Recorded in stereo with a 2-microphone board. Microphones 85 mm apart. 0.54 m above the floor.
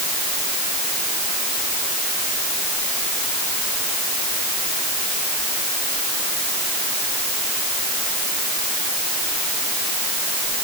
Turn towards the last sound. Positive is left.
No sound to turn to.